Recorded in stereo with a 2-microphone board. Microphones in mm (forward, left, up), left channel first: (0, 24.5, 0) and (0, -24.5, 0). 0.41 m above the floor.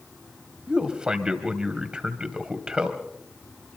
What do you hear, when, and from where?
0.7 s a man speaking: 20° right (ahead or behind), 2.5 m